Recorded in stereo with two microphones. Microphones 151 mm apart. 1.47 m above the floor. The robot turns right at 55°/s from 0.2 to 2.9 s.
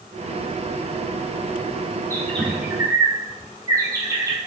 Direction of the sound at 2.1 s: 15° left (ahead or behind).